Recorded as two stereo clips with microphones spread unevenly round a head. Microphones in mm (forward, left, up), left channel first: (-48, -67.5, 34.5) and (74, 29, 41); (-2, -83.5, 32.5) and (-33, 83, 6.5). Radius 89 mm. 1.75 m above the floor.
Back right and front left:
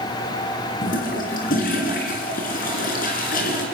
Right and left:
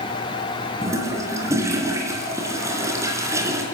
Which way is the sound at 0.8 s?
175° left.